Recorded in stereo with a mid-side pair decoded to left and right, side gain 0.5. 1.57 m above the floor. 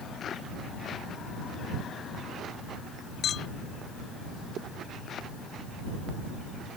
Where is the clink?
55° left.